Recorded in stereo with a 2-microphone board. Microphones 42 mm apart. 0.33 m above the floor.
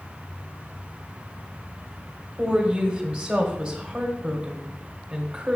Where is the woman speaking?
30° right (ahead or behind), 1.4 m.